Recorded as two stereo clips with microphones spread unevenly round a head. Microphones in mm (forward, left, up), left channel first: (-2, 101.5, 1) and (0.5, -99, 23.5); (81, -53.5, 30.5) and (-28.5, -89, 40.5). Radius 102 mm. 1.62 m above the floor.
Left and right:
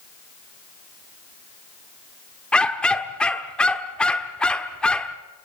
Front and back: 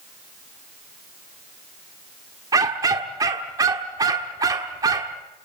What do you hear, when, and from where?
2.5 s a dog barking: 175° right, 1.3 m